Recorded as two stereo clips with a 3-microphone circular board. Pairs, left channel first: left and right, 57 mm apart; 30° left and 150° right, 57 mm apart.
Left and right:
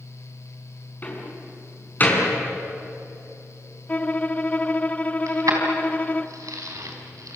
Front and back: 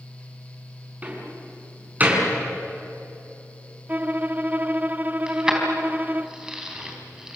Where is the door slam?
150° left, 5.5 m.